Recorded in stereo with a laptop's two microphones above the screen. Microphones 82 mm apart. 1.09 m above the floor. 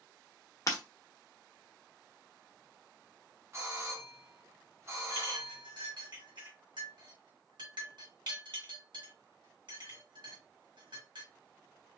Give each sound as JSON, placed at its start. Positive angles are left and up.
{"t": 0.7, "sound": "breaking glass", "side_deg": 45, "distance_m": 1.0}
{"t": 3.5, "sound": "a doorbell", "side_deg": -35, "distance_m": 1.0}
{"t": 5.1, "sound": "a clink", "side_deg": -70, "distance_m": 1.3}